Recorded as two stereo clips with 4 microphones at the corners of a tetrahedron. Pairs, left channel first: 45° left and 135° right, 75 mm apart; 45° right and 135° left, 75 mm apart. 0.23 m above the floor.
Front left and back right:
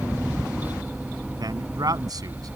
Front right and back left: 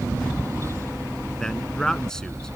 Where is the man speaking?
125° right.